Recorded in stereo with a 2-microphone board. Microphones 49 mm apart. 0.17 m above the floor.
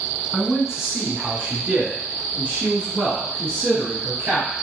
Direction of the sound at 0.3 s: 5° right (ahead or behind).